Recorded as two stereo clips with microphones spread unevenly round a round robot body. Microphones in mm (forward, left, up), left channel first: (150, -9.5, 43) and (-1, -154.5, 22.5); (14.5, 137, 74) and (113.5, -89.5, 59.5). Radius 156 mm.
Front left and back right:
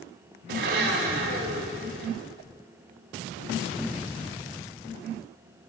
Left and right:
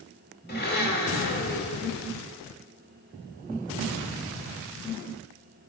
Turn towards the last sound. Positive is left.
turn(degrees=170)